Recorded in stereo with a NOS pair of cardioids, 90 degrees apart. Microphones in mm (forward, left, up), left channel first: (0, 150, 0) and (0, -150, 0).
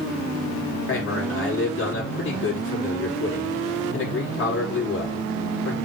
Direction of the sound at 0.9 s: 40° left.